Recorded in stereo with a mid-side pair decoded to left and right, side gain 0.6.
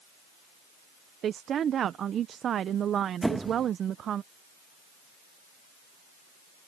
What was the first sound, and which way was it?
A woman speaking, 45° right.